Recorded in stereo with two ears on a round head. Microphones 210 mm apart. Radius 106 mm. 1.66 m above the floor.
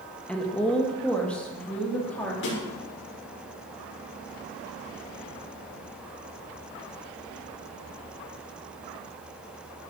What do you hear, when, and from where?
0.3 s a woman speaking: 5° left (ahead or behind), 1.9 m
2.4 s a snare drum: 55° left (ahead or behind), 6 m